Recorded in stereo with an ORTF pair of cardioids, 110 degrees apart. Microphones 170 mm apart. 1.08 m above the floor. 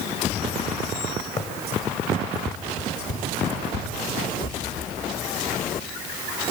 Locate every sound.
1.4 s running footsteps: 45° left, 4 m; by 4.9 s 75° left, 5.5 m